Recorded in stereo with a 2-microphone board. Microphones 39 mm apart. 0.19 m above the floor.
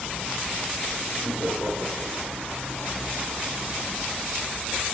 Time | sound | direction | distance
1.2 | laughter | 65° right (ahead or behind) | 5 m